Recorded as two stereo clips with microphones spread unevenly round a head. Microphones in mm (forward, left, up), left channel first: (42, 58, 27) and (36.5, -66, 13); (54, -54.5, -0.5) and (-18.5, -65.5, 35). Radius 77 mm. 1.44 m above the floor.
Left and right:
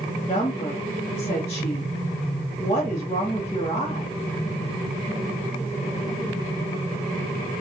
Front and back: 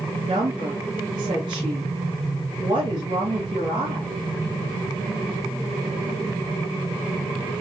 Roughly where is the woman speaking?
Behind left.